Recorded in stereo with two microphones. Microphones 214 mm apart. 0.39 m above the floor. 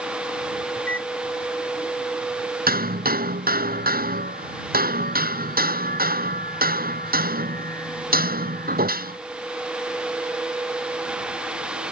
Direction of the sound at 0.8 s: 75° left (ahead or behind).